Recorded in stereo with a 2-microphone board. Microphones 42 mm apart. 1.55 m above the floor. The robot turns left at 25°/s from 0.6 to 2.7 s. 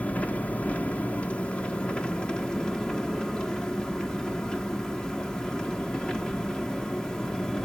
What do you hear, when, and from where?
0.0 s an engine running: 95° left, 1.2 m; by 7.7 s 40° left, 1.2 m